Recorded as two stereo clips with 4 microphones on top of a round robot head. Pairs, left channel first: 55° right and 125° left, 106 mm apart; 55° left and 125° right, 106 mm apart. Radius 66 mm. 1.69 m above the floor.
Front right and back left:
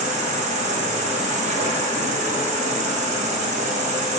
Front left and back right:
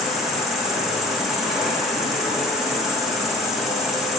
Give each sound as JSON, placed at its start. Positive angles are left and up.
{"t": 0.0, "sound": "an insect", "azimuth_deg": 145, "distance_m": 1.0}